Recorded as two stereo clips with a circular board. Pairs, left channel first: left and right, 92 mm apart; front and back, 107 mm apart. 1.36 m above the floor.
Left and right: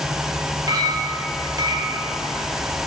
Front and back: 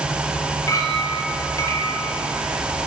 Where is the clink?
55° right, 0.9 m.